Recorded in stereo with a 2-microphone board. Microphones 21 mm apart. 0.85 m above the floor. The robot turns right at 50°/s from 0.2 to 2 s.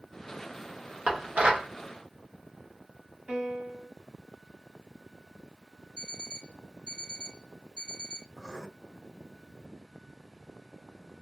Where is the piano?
60° right (ahead or behind), 2 m.